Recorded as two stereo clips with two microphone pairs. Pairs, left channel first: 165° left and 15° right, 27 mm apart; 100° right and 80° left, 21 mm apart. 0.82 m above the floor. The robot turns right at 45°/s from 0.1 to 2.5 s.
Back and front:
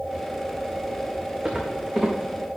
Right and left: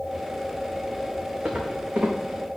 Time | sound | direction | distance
1.4 | footsteps | 40° left | 2.5 m